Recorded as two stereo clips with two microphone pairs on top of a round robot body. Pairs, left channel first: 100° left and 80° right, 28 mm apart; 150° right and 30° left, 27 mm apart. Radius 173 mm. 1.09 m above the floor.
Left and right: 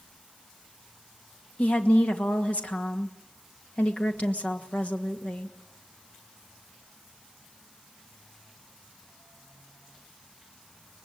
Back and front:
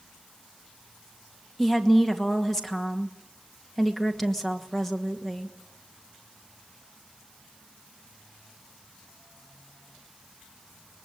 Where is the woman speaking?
130° left, 2.5 m.